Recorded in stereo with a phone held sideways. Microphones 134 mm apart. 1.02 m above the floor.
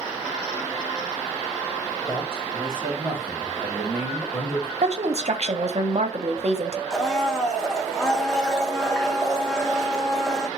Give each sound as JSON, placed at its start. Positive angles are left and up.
{"t": 2.1, "sound": "a man speaking", "side_deg": -25, "distance_m": 3.0}
{"t": 4.8, "sound": "a woman speaking", "side_deg": -55, "distance_m": 0.6}
{"t": 6.9, "sound": "a blender", "side_deg": 5, "distance_m": 0.5}